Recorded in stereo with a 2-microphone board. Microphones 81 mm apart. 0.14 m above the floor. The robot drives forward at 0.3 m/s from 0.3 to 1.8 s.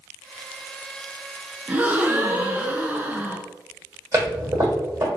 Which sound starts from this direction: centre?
A gasp, at 1.7 s.